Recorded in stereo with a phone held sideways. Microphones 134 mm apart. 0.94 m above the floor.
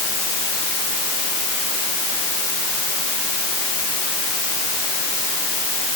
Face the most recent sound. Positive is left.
No sound to turn to.